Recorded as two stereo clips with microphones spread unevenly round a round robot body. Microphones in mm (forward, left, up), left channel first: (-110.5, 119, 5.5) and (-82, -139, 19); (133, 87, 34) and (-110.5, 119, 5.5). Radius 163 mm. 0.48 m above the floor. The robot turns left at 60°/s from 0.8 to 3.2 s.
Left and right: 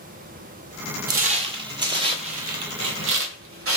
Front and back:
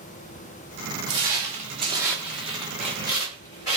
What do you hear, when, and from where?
1.1 s footsteps: 125° right, 0.7 m; by 3.8 s 105° right, 1.0 m